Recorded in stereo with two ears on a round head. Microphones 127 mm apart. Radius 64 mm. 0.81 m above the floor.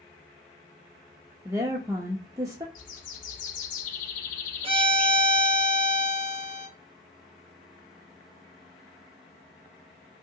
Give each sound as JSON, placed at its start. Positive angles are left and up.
{"t": 1.4, "sound": "a woman speaking", "side_deg": -25, "distance_m": 0.6}
{"t": 2.8, "sound": "a bird", "side_deg": 60, "distance_m": 0.6}
{"t": 4.6, "sound": "a violin", "side_deg": -40, "distance_m": 0.6}